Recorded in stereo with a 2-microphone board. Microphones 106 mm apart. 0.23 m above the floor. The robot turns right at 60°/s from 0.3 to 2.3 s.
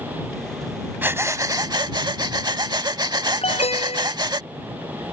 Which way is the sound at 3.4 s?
75° left (ahead or behind).